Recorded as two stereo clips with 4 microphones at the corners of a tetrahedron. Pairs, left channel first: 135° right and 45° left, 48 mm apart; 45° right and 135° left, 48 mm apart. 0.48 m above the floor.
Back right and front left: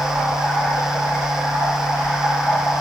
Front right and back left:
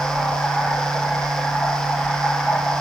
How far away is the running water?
About 10 m.